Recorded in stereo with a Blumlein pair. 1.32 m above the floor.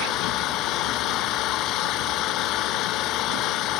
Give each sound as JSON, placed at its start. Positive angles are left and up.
{"t": 0.0, "sound": "an engine running", "azimuth_deg": 35}